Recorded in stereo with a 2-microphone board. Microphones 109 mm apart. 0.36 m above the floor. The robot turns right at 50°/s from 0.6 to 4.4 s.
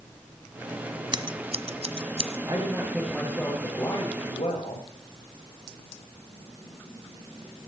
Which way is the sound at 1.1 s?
45° right (ahead or behind).